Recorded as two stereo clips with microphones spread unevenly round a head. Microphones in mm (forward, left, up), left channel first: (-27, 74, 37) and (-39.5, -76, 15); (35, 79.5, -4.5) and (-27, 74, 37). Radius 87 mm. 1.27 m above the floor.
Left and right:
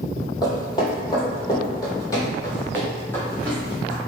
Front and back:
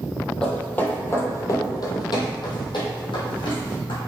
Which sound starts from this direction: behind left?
Footsteps, at 0.4 s.